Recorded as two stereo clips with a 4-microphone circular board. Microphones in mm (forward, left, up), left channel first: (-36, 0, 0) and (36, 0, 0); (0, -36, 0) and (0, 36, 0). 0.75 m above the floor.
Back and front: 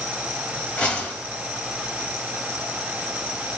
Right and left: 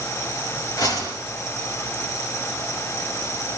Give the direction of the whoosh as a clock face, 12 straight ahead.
4 o'clock.